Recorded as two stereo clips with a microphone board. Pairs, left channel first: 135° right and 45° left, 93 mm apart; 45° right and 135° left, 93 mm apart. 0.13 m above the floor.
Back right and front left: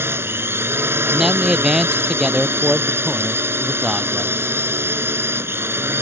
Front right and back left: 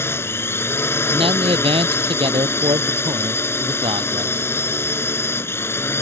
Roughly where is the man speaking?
Behind left.